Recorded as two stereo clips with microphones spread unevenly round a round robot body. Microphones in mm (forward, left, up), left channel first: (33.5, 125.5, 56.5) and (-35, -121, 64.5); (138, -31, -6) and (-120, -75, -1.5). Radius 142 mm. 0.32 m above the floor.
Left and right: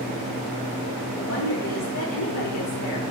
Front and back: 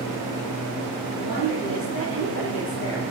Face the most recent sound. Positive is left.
turn(degrees=55)